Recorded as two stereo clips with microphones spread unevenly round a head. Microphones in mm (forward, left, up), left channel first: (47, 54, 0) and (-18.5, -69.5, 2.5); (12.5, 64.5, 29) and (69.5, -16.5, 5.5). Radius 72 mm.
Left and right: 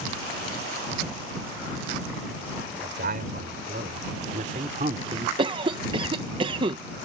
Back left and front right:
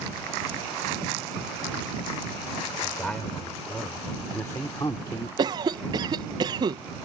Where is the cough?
70° right.